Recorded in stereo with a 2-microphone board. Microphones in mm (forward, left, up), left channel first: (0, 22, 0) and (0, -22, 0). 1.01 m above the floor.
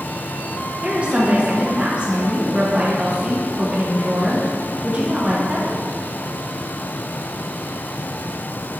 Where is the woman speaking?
30° right (ahead or behind), 1.1 m.